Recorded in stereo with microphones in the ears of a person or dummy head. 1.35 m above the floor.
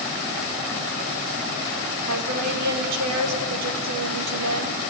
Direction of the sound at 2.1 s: 75° right (ahead or behind).